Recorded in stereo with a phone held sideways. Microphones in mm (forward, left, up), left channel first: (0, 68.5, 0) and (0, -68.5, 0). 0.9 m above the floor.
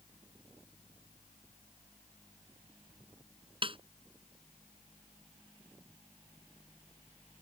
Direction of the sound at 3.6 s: 40° right (ahead or behind).